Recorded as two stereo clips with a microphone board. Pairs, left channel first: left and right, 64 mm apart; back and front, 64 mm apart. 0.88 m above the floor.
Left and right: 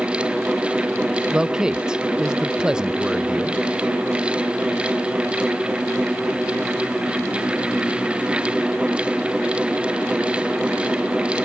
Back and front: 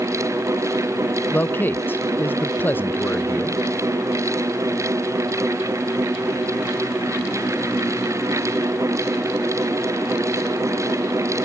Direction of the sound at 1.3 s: 155° right.